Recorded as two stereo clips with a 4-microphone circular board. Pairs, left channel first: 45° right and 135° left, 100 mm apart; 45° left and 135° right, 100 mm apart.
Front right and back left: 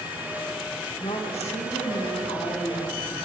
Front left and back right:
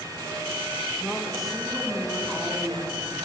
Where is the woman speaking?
45° right, 1.8 m.